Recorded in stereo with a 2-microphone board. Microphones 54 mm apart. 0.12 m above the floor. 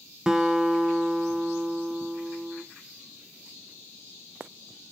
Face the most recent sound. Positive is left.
turn(degrees=-15)  # may be behind; listen again after turning